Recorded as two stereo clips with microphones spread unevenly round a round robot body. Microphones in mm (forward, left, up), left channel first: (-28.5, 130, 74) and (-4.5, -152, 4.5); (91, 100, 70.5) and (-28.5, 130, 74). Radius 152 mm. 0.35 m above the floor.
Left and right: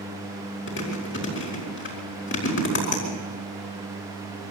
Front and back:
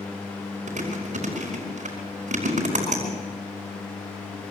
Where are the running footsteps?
No running footsteps in this recording.